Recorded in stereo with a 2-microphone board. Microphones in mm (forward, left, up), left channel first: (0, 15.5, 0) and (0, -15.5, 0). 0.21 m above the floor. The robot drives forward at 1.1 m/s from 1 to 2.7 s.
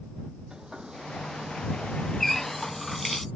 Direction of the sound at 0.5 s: 25° right (ahead or behind).